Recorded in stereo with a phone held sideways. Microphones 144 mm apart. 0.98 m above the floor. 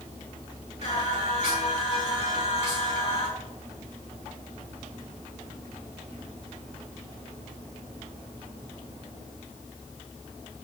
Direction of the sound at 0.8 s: 50° left (ahead or behind).